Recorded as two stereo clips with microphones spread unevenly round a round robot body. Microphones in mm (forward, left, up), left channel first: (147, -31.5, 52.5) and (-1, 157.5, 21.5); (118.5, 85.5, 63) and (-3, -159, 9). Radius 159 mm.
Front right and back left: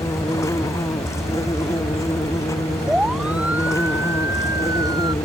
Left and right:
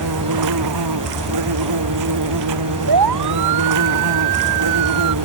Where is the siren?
145° right; by 5.2 s 155° right.